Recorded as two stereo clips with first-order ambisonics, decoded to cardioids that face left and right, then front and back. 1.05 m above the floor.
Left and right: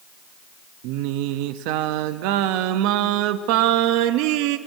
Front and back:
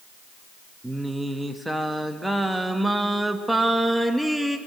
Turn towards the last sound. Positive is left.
turn(degrees=-90)